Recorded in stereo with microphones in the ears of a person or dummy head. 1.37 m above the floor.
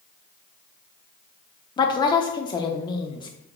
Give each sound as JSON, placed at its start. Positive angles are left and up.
{"t": 1.8, "sound": "a woman speaking", "side_deg": 25, "distance_m": 0.5}